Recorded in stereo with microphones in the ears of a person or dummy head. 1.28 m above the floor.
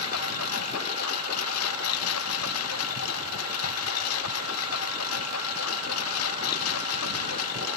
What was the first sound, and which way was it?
A lawn mower, 90° left.